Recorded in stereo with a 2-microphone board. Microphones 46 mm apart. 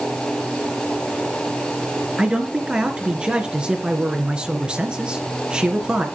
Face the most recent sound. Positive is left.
turn(degrees=-20)  # may be behind; listen again after turning